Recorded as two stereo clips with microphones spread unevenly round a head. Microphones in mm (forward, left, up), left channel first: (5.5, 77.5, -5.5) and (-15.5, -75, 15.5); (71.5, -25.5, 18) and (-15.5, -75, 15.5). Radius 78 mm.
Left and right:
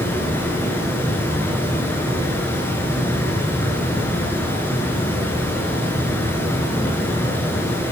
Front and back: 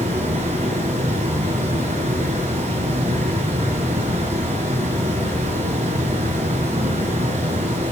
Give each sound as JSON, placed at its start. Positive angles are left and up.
{"t": 0.0, "sound": "running water", "azimuth_deg": 160, "distance_m": 6.0}